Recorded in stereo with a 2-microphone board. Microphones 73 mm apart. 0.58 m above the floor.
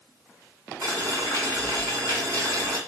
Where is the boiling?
50° right (ahead or behind), 1.8 m.